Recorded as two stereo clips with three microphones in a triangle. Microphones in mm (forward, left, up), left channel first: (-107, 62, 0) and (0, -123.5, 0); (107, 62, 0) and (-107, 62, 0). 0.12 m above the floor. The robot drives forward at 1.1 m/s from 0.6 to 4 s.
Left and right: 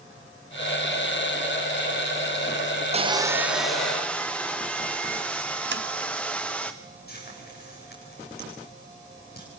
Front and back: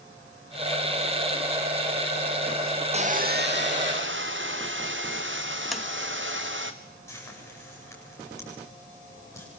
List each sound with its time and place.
2.9 s sawing: 120° right, 0.9 m; by 6.7 s 155° right, 1.8 m
5.7 s tapping: 90° right, 1.2 m
7.1 s frying: 80° left, 9 m